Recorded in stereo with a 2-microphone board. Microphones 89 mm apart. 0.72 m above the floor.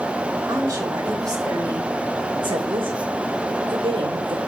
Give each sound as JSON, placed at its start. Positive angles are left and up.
{"t": 0.5, "sound": "a woman speaking", "side_deg": -35, "distance_m": 4.5}